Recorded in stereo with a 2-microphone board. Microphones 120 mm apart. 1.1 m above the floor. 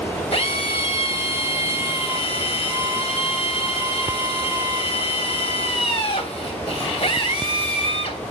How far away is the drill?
About 3 m.